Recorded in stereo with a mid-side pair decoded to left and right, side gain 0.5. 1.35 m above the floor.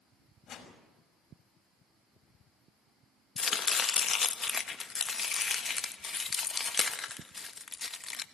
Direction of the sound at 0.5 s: 55° left.